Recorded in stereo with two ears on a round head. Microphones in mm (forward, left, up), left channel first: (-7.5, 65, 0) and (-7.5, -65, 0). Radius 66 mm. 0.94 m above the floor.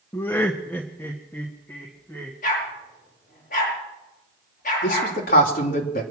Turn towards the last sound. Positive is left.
turn(degrees=60)  # may be behind; listen again after turning